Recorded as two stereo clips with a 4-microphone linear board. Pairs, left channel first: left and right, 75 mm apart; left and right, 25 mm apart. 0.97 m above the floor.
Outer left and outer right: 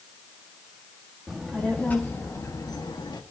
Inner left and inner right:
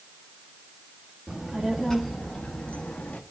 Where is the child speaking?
Centre (ahead or behind), 1.3 m; by 3.2 s 75° left (ahead or behind), 1.3 m.